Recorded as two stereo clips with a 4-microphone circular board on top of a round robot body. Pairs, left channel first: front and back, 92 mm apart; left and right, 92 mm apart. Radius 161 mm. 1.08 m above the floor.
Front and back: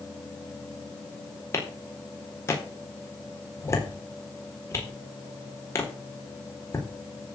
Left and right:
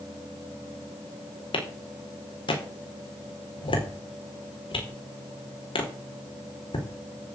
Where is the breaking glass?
No breaking glass in this recording.